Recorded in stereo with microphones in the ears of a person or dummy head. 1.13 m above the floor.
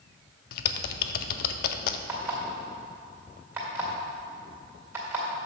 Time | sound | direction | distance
0.5 | typing on a keyboard | 65° left (ahead or behind) | 0.5 m
2.1 | an alarm clock | 15° right (ahead or behind) | 1.9 m